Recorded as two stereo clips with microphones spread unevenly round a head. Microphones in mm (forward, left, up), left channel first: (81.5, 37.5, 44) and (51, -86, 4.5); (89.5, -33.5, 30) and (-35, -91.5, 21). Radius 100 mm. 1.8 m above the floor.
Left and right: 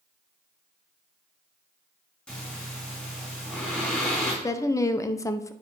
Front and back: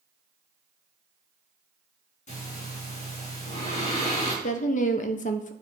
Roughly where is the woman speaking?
Ahead left.